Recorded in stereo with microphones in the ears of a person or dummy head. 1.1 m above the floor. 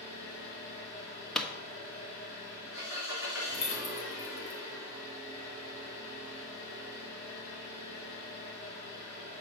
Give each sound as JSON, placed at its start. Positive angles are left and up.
{"t": 0.0, "sound": "an engine running", "side_deg": 50, "distance_m": 3.5}
{"t": 1.4, "sound": "a pop", "side_deg": 10, "distance_m": 1.0}
{"t": 3.5, "sound": "keys jangling", "side_deg": 35, "distance_m": 1.1}